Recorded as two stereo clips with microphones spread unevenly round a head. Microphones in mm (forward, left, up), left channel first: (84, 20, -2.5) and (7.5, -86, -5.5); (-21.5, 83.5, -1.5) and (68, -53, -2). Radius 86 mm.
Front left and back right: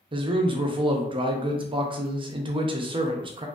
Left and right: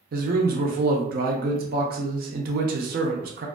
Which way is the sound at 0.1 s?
80° right.